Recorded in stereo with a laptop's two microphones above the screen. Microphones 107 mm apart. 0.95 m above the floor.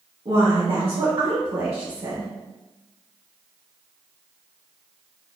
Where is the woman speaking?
70° right (ahead or behind), 1.6 m; by 2.3 s 45° right (ahead or behind), 0.5 m.